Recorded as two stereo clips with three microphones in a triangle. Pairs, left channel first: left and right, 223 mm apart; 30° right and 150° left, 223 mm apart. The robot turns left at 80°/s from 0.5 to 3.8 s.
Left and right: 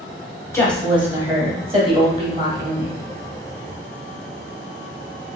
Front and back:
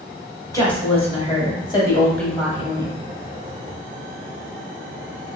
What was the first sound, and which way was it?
A woman speaking, 25° left.